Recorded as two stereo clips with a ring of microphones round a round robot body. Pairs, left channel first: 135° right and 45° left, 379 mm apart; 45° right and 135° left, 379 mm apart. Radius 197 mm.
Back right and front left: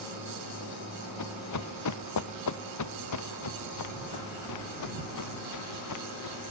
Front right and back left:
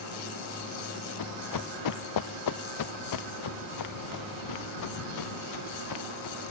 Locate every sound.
1.2 s running footsteps: 85° right; by 6.5 s 90° right